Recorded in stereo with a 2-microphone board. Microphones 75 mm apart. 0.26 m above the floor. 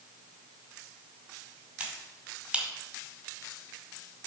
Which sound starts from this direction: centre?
A finger snap, at 1.8 s.